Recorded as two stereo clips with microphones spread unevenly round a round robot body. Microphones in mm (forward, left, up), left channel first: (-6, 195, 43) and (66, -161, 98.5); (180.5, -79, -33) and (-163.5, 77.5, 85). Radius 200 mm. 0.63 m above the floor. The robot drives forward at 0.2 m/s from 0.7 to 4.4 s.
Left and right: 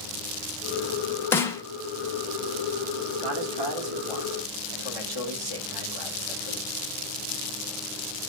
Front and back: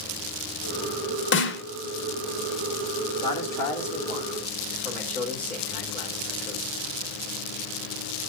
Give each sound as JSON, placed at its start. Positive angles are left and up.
{"t": 1.3, "sound": "a snare drum", "azimuth_deg": 20, "distance_m": 1.0}
{"t": 3.2, "sound": "a man speaking", "azimuth_deg": -95, "distance_m": 2.5}